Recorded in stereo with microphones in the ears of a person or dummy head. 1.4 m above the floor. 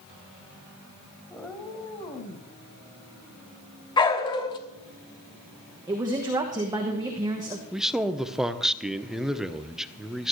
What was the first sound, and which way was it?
A cat meowing, centre (ahead or behind).